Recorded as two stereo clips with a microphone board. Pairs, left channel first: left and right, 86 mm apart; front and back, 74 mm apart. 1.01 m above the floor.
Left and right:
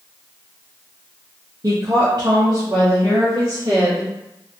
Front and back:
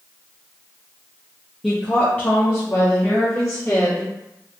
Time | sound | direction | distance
1.6 | a woman speaking | 90° right | 0.5 m